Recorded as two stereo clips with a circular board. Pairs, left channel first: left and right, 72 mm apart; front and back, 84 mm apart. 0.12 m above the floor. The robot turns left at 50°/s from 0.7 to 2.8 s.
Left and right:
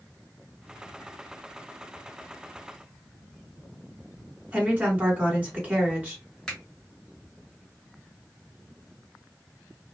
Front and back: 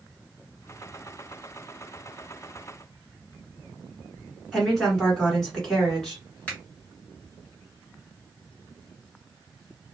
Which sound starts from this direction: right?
A woman speaking, at 4.5 s.